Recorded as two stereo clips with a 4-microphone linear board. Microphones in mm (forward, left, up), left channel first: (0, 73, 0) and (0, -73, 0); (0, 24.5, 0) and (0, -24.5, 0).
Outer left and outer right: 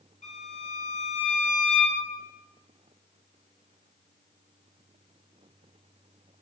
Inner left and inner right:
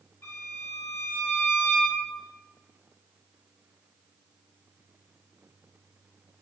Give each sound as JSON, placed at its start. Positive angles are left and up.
{"t": 0.2, "sound": "a violin", "side_deg": 55, "distance_m": 1.1}